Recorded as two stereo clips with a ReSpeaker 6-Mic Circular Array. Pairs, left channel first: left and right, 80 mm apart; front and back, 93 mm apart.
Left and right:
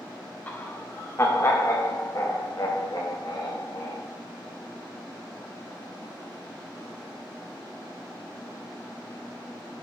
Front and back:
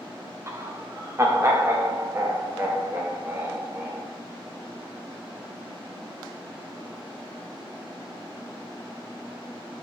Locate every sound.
0.5 s laughter: 145° left, 1.2 m; by 4.0 s 120° left, 2.5 m